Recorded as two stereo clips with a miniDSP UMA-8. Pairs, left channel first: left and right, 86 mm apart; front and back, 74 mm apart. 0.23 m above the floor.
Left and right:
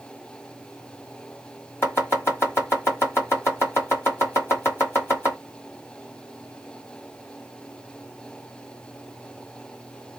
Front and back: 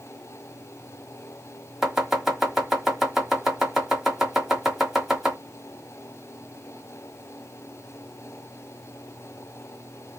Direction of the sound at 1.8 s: 100° left.